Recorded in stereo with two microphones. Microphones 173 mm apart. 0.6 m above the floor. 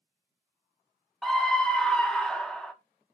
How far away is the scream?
About 0.7 m.